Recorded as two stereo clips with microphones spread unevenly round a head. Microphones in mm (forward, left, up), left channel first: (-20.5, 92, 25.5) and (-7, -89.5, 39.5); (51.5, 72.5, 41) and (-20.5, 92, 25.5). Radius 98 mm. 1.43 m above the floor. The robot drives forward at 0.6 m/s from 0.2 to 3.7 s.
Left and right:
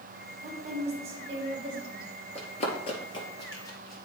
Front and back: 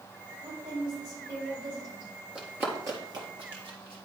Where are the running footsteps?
85° left, 1.5 m; by 4.0 s 170° left, 2.5 m.